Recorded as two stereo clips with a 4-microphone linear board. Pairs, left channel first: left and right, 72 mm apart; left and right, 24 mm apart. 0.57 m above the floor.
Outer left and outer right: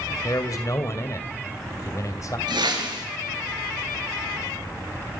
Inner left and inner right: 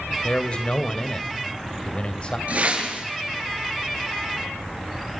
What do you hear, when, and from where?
0.2 s a man speaking: 45° left (ahead or behind), 2.5 m
2.5 s a whoosh: 75° right (ahead or behind), 5.5 m